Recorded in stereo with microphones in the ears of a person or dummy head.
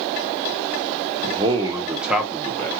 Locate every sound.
1.2 s a man speaking: 35° right (ahead or behind), 0.9 m; by 2.8 s 15° left (ahead or behind), 1.0 m